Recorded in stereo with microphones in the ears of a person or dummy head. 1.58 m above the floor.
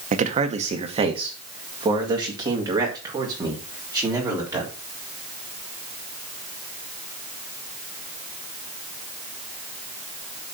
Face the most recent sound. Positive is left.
turn(degrees=-15)  # may be behind; listen again after turning